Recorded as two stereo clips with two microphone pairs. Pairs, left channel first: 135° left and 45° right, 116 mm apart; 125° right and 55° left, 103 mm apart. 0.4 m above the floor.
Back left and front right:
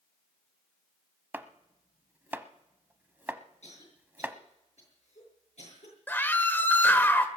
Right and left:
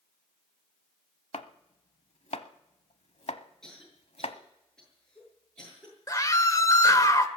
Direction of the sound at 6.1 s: 160° right.